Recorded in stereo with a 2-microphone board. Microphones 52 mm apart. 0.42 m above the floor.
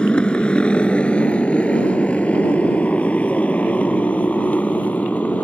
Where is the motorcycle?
20° left (ahead or behind); by 5.5 s 25° left (ahead or behind).